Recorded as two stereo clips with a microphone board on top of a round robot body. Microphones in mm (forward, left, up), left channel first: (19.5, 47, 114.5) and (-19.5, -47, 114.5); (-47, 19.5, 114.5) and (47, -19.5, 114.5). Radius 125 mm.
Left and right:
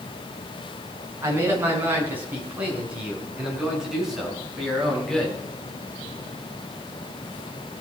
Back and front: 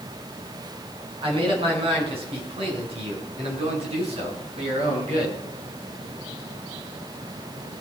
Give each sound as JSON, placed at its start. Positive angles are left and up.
{"t": 1.2, "sound": "a man speaking", "azimuth_deg": -50, "distance_m": 5.5}